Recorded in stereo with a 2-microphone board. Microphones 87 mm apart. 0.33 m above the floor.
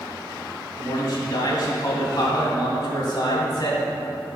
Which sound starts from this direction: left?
A man speaking, at 0.8 s.